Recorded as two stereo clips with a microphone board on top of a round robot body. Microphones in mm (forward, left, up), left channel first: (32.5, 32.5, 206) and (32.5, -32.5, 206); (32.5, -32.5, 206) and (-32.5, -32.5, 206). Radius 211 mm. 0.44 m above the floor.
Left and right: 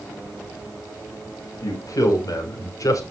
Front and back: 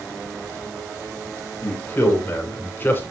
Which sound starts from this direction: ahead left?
A man speaking, at 1.6 s.